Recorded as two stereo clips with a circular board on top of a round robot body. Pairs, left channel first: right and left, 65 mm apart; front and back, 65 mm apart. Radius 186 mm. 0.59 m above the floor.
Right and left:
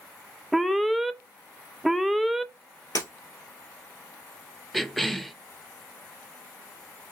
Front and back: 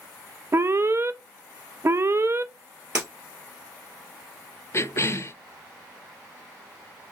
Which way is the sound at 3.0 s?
120° right.